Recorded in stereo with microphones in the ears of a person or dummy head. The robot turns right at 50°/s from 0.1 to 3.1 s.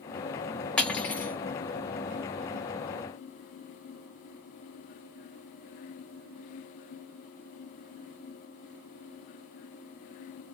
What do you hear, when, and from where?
0.8 s cutlery clinking: 10° left (ahead or behind), 0.6 m; by 1.4 s 15° left (ahead or behind), 0.6 m